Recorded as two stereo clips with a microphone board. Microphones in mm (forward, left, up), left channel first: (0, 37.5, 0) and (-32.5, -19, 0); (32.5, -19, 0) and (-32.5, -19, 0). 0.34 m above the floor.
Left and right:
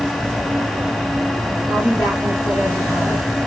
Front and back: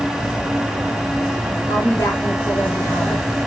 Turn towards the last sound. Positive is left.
turn(degrees=5)